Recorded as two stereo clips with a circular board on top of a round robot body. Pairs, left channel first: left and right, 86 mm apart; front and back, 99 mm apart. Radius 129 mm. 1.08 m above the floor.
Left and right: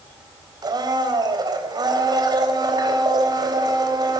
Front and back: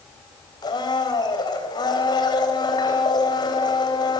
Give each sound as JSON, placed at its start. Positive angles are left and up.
{"t": 0.6, "sound": "a blender", "azimuth_deg": -50, "distance_m": 3.5}